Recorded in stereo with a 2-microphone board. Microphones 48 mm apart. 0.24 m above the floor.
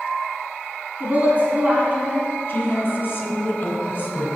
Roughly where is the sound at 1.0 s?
Right.